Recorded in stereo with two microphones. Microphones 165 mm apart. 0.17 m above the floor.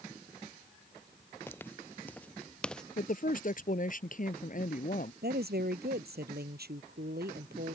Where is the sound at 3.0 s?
55° left (ahead or behind).